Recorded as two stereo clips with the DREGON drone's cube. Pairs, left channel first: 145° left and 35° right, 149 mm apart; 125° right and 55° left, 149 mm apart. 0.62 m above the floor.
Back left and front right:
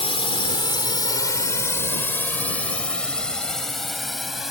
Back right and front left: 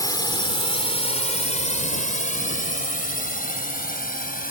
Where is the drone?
Straight behind; by 4.5 s 120° right.